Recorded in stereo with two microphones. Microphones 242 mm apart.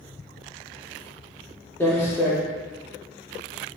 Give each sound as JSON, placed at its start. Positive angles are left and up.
{"t": 1.8, "sound": "footsteps", "side_deg": 10, "distance_m": 1.1}